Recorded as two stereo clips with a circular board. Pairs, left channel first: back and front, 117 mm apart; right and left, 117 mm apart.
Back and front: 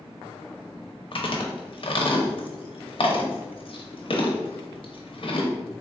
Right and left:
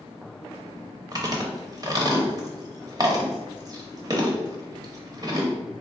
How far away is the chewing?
About 0.7 m.